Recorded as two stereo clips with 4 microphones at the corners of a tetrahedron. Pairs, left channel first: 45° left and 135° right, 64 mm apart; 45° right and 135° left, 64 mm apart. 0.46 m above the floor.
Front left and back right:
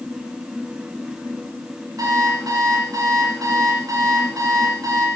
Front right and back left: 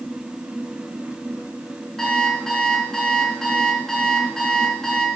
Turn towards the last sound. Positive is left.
turn(degrees=-125)